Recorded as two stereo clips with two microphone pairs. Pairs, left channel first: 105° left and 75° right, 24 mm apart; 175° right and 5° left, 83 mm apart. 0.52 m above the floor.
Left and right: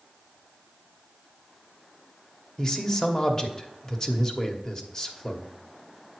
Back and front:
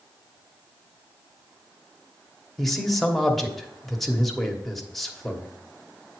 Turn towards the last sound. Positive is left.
turn(degrees=110)